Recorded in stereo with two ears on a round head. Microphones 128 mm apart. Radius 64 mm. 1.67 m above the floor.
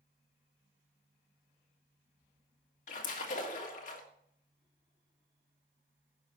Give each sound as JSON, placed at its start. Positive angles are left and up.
{"t": 2.9, "sound": "a splash", "side_deg": 60, "distance_m": 1.7}